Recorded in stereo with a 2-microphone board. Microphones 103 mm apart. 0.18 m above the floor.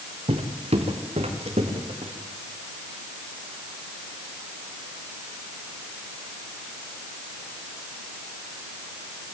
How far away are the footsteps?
About 2.5 m.